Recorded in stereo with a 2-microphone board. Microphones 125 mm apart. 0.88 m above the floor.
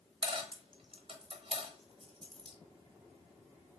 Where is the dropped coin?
45° right (ahead or behind), 0.9 m.